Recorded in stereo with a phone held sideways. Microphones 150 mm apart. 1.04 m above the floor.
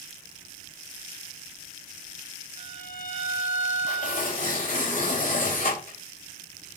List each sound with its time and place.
2.6 s a violin: 70° left (ahead or behind), 6 m
3.9 s tearing paper: 65° left (ahead or behind), 4.5 m